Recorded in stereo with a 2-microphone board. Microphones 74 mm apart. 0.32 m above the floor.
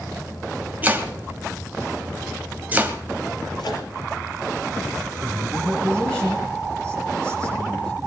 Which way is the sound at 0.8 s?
20° right (ahead or behind).